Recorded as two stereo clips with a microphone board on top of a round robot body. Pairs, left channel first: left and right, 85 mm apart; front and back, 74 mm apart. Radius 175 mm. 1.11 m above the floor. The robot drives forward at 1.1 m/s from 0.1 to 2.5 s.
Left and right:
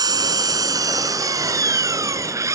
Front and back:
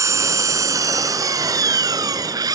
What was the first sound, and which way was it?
An engine running, 135° right.